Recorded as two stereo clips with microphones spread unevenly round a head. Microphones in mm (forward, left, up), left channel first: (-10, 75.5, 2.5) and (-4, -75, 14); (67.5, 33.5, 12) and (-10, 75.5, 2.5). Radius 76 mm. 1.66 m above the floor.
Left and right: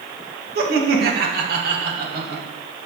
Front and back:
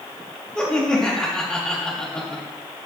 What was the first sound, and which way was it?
Laughter, 115° right.